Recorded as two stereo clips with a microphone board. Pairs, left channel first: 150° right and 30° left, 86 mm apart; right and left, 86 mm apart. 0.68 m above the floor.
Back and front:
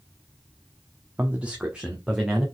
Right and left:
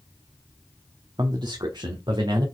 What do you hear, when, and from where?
1.2 s a man speaking: 95° left, 0.9 m; by 2.5 s 115° left, 2 m